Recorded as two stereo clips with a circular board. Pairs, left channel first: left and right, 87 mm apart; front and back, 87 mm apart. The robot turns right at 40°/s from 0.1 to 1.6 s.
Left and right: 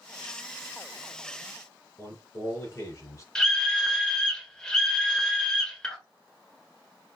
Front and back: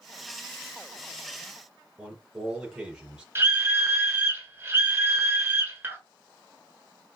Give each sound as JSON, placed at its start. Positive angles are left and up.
{"t": 2.0, "sound": "a man speaking", "azimuth_deg": 105, "distance_m": 2.0}
{"t": 3.4, "sound": "a scream", "azimuth_deg": 165, "distance_m": 1.2}